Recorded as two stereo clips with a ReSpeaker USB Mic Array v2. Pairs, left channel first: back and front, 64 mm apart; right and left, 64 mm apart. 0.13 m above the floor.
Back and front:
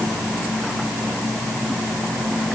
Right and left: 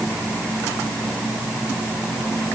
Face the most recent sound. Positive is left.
No sound to turn to.